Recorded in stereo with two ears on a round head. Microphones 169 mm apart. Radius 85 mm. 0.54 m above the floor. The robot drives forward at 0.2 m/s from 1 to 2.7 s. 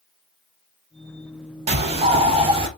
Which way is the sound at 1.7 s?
35° right (ahead or behind).